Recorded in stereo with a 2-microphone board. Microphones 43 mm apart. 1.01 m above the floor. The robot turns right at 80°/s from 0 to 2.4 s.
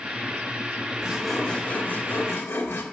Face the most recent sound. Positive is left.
turn(degrees=90)